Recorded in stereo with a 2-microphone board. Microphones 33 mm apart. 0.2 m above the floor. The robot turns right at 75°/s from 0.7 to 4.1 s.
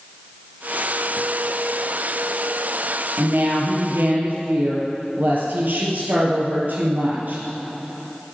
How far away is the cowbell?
I don't hear a cowbell.